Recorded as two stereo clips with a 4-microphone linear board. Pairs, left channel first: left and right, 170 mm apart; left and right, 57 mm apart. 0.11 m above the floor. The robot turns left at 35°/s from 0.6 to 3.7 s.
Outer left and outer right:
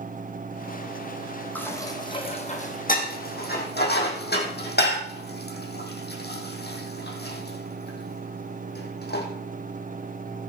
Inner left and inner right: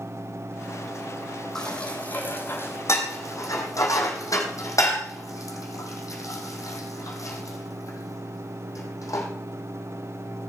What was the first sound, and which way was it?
Dishes clattering, 10° left (ahead or behind).